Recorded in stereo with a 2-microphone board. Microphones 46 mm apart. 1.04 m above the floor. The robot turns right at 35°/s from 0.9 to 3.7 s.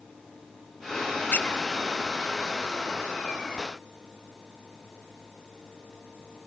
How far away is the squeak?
About 0.9 m.